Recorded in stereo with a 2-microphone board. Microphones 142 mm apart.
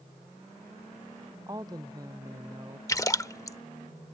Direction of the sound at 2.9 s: 25° left (ahead or behind).